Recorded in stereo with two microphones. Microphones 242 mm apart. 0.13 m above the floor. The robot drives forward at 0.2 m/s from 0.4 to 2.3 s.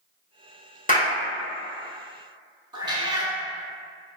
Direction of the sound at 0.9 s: 35° left (ahead or behind).